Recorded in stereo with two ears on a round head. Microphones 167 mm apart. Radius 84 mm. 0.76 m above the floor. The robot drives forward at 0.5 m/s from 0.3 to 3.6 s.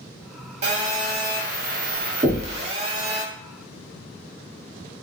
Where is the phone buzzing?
35° right (ahead or behind), 0.8 m; by 3.2 s 30° right (ahead or behind), 1.1 m.